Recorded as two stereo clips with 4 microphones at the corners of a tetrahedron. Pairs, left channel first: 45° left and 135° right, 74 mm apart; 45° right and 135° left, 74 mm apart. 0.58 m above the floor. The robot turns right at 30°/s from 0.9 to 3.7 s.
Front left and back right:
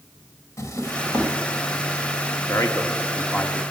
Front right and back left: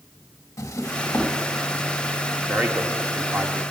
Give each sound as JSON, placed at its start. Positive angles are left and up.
{"t": 0.6, "sound": "a drawer", "azimuth_deg": 0, "distance_m": 1.0}
{"t": 2.5, "sound": "a man speaking", "azimuth_deg": 70, "distance_m": 1.0}